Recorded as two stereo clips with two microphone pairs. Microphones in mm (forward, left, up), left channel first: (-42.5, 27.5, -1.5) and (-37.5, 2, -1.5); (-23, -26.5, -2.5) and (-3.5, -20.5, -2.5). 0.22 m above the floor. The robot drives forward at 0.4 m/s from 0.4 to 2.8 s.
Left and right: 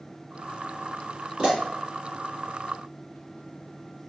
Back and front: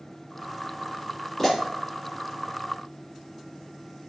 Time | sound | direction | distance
1.4 | a pop | 95° right | 1.3 m